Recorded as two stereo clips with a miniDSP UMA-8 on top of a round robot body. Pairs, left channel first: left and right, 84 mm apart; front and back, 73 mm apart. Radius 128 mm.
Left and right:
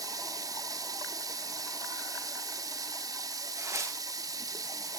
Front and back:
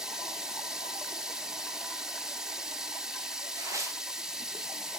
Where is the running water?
100° right, 1.6 m.